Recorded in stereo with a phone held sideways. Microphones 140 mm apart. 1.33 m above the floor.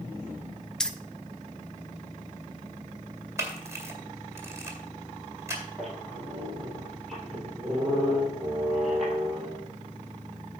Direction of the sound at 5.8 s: Centre (ahead or behind).